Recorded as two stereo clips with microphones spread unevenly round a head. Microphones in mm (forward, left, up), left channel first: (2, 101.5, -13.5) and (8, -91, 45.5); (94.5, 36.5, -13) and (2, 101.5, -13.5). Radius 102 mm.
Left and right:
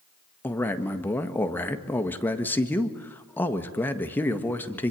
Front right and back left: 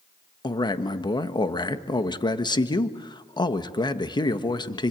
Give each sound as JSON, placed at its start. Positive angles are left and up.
{"t": 0.4, "sound": "a man speaking", "azimuth_deg": 15, "distance_m": 1.6}